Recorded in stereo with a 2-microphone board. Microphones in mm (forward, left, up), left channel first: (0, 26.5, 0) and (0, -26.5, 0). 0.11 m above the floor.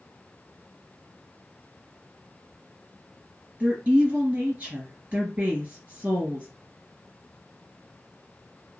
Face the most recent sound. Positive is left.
turn(degrees=-30)  # may be behind; listen again after turning